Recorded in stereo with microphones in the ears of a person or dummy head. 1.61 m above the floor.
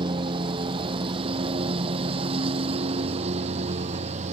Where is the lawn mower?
30° right (ahead or behind); by 4.3 s 40° right (ahead or behind).